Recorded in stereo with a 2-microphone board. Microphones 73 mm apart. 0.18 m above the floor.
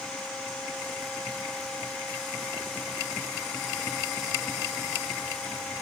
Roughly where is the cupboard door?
No cupboard door in this recording.